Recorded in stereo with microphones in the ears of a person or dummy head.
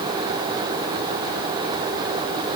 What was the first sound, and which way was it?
Only background noise.